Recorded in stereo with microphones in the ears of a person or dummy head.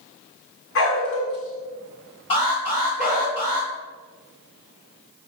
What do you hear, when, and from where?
0.8 s a dog barking: 70° left (ahead or behind), 1.7 m; by 3.3 s 30° left (ahead or behind), 1.7 m
2.3 s an alarm: 30° left (ahead or behind), 2.5 m